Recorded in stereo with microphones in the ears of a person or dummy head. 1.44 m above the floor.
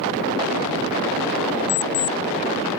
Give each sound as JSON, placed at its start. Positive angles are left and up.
{"t": 1.7, "sound": "an alarm clock", "side_deg": 60}